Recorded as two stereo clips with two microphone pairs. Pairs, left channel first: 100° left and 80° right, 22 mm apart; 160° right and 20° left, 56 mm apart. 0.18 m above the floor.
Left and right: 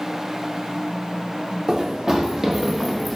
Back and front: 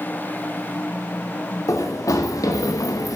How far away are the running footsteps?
About 1.4 m.